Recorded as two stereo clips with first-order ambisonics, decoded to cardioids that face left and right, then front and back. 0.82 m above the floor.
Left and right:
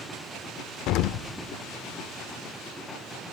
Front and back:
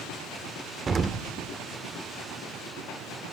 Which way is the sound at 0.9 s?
110° left.